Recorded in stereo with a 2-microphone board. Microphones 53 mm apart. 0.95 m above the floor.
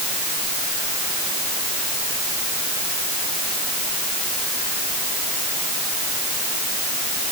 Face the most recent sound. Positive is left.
No sound to turn to.